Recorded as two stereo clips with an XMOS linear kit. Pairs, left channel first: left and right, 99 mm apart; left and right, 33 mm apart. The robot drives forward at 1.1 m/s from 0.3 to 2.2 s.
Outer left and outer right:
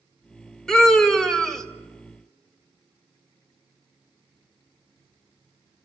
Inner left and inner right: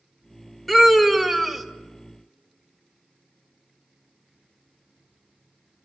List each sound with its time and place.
0.7 s a scream: 5° left (ahead or behind), 2.5 m